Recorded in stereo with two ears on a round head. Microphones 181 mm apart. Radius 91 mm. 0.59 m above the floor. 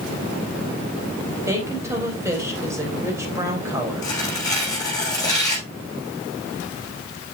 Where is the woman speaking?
15° right (ahead or behind), 4 m.